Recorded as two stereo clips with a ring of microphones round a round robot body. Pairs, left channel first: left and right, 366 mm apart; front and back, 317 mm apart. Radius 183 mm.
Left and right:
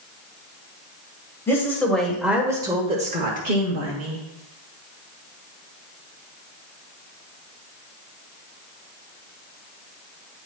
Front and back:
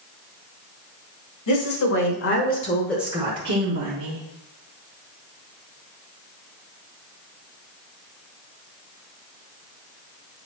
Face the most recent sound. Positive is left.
turn(degrees=-155)